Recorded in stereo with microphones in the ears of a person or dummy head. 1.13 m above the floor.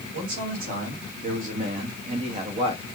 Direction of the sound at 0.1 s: 50° right (ahead or behind).